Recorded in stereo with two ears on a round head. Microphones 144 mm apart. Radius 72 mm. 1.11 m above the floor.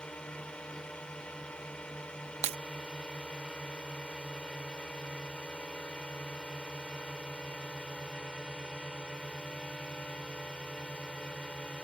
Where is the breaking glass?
40° right (ahead or behind).